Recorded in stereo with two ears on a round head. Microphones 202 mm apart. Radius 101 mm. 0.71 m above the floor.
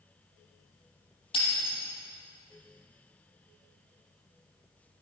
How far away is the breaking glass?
About 9.5 m.